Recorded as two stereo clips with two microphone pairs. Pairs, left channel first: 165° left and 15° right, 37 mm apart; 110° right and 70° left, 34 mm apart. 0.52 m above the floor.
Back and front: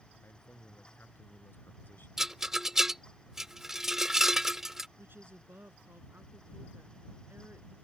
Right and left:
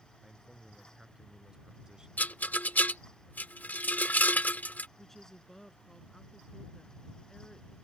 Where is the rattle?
90° right.